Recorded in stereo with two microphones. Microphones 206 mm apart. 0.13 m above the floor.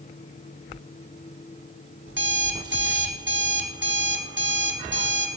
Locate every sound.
2.1 s an alarm clock: 65° right (ahead or behind), 3 m